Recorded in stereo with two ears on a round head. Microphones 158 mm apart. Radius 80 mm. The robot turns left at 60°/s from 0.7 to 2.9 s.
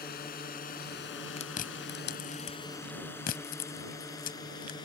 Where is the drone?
60° left (ahead or behind); by 4.9 s 25° left (ahead or behind).